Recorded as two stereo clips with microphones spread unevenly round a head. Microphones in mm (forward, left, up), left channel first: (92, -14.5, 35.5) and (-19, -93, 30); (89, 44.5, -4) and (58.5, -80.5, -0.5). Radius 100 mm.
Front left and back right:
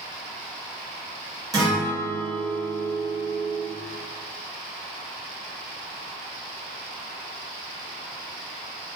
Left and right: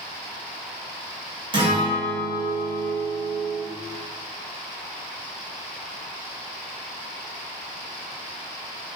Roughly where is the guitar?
Right.